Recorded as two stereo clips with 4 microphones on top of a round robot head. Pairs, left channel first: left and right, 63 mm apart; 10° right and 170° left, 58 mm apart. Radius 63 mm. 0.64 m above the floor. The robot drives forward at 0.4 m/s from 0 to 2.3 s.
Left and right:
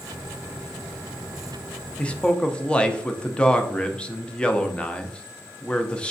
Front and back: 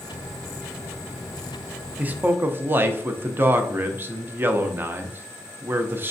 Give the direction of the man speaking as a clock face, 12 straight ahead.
7 o'clock.